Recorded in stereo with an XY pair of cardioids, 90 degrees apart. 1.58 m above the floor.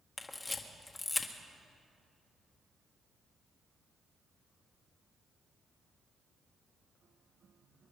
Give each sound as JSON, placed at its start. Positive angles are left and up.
{"t": 0.2, "sound": "a camera shutter", "azimuth_deg": 25, "distance_m": 1.6}